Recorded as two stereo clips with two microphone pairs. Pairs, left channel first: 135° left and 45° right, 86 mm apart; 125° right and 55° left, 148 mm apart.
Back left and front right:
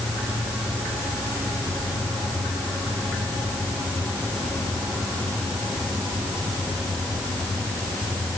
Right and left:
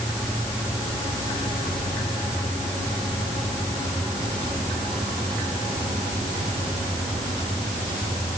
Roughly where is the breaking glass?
I don't hear breaking glass.